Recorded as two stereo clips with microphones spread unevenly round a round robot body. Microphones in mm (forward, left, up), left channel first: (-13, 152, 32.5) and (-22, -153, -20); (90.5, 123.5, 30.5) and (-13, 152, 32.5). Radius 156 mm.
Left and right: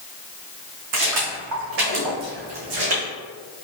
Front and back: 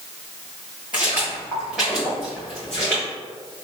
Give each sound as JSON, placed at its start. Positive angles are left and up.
{"t": 0.9, "sound": "footsteps", "azimuth_deg": -120, "distance_m": 2.0}